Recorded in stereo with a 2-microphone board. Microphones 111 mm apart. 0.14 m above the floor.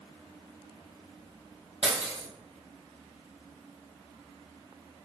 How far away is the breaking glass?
About 2.5 m.